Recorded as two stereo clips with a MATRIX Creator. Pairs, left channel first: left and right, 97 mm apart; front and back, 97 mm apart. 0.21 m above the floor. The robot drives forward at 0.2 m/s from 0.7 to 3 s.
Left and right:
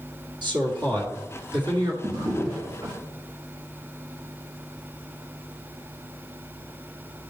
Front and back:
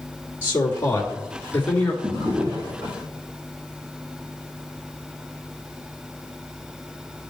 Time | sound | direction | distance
0.4 | a man speaking | 65° right | 2 m
2.0 | a drawer | 140° right | 3 m